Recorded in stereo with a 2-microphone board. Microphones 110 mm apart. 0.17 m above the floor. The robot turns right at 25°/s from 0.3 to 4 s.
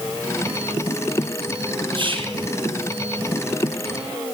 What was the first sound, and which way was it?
Whispering, 45° right (ahead or behind).